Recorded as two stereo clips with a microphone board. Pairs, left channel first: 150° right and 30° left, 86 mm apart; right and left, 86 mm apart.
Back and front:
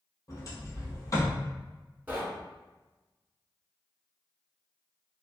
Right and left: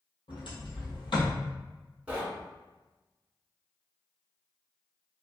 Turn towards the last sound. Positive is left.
turn(degrees=50)